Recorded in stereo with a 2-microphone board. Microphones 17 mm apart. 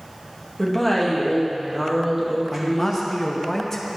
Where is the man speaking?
15° left (ahead or behind), 1.0 m.